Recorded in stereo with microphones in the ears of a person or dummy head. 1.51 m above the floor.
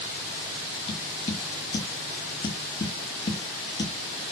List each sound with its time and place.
0.9 s tapping: 25° left (ahead or behind), 1.3 m